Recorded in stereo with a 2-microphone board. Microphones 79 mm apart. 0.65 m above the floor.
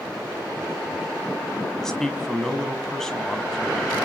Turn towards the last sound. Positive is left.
turn(degrees=10)  # may be behind; listen again after turning